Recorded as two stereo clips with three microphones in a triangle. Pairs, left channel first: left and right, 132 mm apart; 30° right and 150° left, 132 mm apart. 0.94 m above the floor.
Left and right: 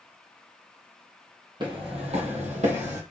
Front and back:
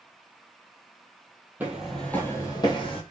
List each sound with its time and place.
1.6 s footsteps: 135° right, 1.6 m; by 3.0 s 70° right, 2 m